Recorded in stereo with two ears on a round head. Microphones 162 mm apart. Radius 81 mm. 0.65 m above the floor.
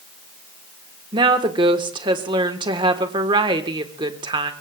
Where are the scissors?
I don't hear scissors.